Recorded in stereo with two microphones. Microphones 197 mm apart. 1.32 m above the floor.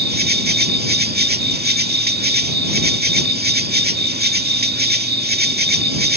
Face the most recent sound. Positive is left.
turn(degrees=-50)  # may be behind; listen again after turning